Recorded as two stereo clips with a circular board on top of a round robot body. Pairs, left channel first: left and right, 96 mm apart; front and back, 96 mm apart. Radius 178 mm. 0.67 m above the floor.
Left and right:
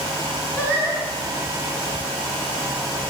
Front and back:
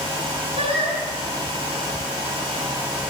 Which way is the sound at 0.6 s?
160° left.